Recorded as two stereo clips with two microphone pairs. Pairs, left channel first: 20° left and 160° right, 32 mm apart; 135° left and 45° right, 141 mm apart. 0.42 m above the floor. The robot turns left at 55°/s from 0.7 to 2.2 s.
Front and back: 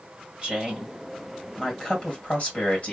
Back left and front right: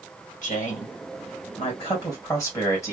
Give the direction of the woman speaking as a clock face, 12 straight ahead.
7 o'clock.